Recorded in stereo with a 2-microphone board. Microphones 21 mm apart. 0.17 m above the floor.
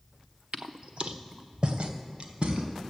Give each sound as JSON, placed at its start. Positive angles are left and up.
{"t": 0.5, "sound": "footsteps", "side_deg": -80, "distance_m": 0.6}